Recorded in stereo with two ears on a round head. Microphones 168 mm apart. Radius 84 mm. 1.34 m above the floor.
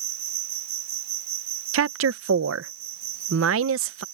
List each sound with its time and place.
0.0 s an insect: 60° right (ahead or behind)
1.7 s a woman speaking: 80° right